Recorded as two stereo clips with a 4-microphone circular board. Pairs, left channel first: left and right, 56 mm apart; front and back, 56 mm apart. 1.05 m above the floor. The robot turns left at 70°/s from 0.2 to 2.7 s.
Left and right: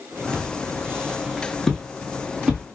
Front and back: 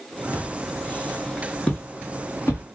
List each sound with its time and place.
0.3 s footsteps: 20° right, 1.3 m; by 2.6 s 25° right, 1.5 m